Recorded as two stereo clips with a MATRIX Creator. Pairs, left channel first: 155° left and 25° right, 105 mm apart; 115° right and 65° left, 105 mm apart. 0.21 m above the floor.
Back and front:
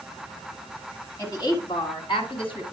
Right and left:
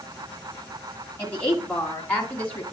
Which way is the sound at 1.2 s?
175° right.